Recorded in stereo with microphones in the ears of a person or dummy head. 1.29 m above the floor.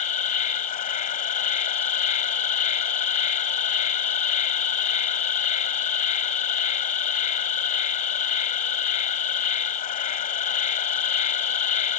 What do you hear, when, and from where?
0.0 s an insect: 35° left (ahead or behind)